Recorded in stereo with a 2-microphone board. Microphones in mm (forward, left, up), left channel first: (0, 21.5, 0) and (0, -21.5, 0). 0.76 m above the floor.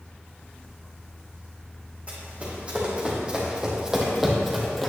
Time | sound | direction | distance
2.1 | running footsteps | 30° right (ahead or behind) | 3 m